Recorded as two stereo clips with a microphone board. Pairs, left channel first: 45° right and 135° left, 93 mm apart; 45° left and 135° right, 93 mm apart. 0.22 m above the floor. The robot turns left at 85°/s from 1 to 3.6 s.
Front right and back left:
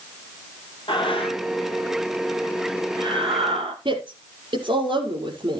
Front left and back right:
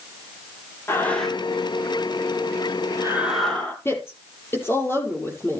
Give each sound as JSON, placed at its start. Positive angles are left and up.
{"t": 0.9, "sound": "breathing", "azimuth_deg": -20, "distance_m": 3.5}
{"t": 3.9, "sound": "a woman speaking", "azimuth_deg": 110, "distance_m": 5.5}